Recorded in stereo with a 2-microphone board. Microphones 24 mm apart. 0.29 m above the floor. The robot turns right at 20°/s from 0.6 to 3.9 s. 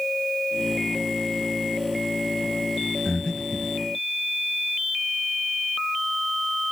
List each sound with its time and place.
3.0 s breathing: 20° left (ahead or behind), 1.3 m; by 3.7 s 30° left (ahead or behind), 1.3 m